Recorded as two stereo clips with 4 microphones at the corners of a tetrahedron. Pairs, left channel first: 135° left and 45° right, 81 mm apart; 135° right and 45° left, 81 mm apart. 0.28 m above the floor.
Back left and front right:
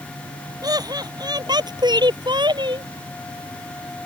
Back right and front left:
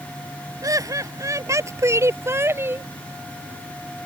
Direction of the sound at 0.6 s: 5° right.